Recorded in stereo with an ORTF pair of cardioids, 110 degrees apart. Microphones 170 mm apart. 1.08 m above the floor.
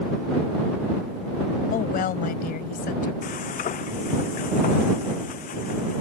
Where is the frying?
55° left.